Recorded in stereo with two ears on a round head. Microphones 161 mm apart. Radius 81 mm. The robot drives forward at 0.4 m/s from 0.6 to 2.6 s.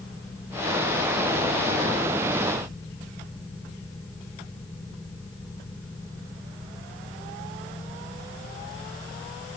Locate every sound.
Only background noise.